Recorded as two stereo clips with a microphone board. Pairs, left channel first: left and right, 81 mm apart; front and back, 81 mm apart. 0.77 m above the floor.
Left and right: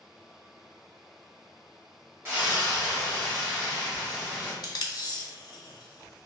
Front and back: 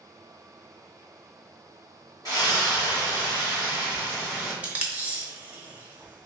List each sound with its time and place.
2.2 s a splash: 30° right, 1.8 m
4.6 s tape being pulled: 110° left, 0.7 m